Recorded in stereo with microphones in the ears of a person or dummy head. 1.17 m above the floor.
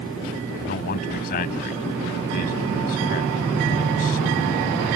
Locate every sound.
0.6 s a man speaking: 45° left (ahead or behind)